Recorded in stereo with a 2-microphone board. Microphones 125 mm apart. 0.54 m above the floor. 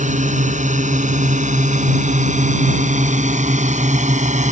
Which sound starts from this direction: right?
A drone, at 0.0 s.